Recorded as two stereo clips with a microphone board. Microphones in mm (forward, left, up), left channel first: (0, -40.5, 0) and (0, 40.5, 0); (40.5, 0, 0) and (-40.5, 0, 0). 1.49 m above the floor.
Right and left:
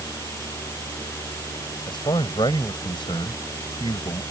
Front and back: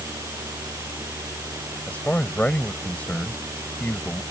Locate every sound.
1.9 s a man speaking: 75° right